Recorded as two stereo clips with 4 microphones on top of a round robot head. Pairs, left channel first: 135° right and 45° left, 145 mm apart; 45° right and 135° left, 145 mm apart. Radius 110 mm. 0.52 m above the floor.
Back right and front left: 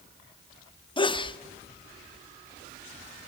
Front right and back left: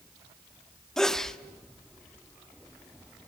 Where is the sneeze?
130° right, 1.2 m.